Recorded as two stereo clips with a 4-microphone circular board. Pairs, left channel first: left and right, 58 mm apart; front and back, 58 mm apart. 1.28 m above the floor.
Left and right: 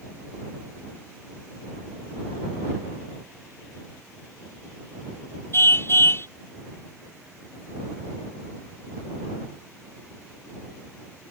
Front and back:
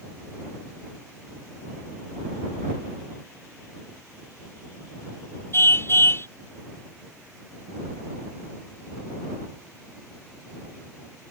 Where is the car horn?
45° left.